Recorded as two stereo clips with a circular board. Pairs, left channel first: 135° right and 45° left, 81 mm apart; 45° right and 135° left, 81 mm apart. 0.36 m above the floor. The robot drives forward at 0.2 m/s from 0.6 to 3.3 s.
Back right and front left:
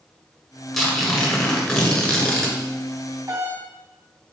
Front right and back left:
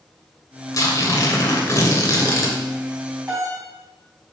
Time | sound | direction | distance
0.7 | tearing paper | 55° right | 1.8 m
3.3 | a doorbell | 100° left | 2.5 m